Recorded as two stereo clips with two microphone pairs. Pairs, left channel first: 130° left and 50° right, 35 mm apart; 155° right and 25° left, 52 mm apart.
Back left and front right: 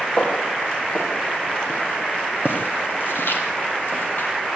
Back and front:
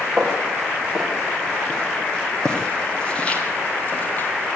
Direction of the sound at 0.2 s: 115° left.